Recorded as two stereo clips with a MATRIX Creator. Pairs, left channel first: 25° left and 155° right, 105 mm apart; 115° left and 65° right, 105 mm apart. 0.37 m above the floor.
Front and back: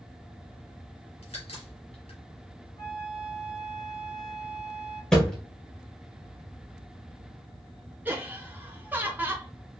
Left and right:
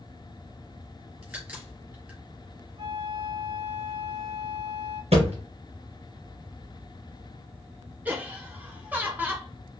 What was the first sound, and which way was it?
A crack, 5° left.